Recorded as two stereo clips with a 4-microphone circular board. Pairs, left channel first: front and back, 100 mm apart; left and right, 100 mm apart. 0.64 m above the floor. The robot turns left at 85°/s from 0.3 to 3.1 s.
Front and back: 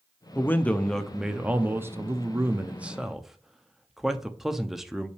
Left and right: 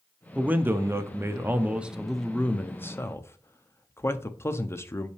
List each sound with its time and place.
0.3 s a man speaking: 30° right, 0.6 m; by 5.1 s 100° left, 0.6 m